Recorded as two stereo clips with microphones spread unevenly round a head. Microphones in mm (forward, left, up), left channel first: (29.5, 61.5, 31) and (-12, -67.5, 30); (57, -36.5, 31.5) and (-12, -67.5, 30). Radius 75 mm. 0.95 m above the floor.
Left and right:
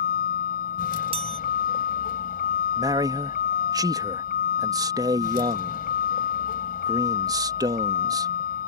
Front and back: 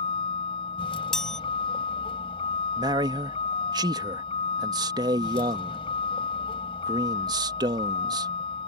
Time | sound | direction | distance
0.0 | a vehicle | 50° left | ?
1.1 | a chime | 60° right | ?
2.8 | a man speaking | 170° right | ?